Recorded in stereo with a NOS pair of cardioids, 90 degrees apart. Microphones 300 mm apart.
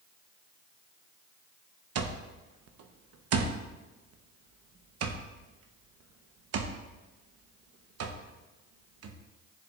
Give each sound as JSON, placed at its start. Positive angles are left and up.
{"t": 1.9, "sound": "an alarm clock", "azimuth_deg": -55, "distance_m": 1.0}